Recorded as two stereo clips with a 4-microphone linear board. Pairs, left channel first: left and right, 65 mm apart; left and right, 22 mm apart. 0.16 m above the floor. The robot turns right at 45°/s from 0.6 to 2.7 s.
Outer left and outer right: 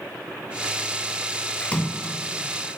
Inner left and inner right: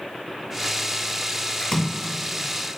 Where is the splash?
15° left (ahead or behind), 0.7 m; by 2.1 s 20° left (ahead or behind), 0.7 m.